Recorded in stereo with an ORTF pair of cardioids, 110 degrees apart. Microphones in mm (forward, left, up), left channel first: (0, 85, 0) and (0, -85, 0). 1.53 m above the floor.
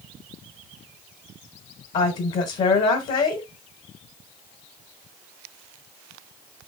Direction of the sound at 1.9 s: 50° left.